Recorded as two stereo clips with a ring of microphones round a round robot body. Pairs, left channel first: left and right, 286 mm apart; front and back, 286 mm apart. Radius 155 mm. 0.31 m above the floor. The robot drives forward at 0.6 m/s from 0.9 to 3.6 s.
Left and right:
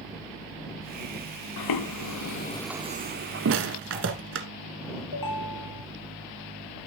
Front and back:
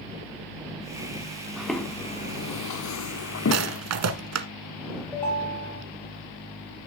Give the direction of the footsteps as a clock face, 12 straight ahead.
9 o'clock.